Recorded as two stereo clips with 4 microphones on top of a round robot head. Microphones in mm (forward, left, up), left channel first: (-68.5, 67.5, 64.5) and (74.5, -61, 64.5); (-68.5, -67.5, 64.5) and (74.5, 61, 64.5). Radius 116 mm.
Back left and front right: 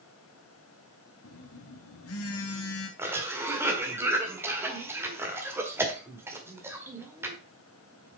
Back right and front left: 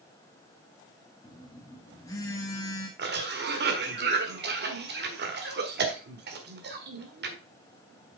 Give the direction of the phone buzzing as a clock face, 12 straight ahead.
7 o'clock.